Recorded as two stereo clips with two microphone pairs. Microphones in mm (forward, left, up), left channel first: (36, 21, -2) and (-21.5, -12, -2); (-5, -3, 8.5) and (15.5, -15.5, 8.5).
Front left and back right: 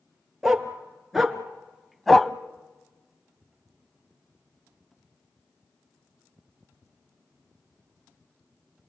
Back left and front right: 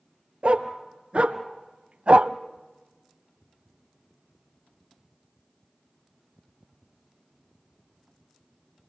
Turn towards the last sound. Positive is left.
turn(degrees=-50)